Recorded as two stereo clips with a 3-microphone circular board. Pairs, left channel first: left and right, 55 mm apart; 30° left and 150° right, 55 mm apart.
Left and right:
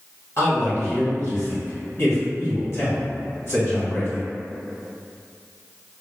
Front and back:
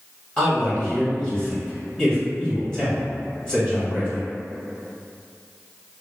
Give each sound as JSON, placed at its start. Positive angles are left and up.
{"t": 0.4, "sound": "a man speaking", "azimuth_deg": 100, "distance_m": 1.5}